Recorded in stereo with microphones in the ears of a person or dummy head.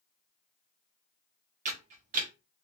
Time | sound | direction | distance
1.6 | a camera shutter | 45° right (ahead or behind) | 0.9 m